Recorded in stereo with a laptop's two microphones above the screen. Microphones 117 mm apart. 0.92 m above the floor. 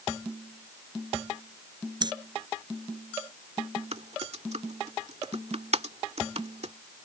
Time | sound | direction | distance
2.0 | breathing | 40° right (ahead or behind) | ?
3.9 | typing on a keyboard | 65° right (ahead or behind) | ?